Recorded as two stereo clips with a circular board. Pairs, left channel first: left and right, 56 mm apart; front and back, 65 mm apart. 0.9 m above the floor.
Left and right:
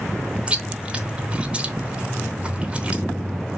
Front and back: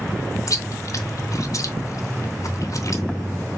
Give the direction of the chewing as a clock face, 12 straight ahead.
1 o'clock.